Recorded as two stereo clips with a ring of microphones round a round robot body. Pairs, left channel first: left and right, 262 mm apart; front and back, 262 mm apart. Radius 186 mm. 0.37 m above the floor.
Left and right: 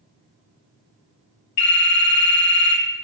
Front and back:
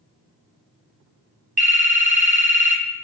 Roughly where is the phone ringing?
Behind left.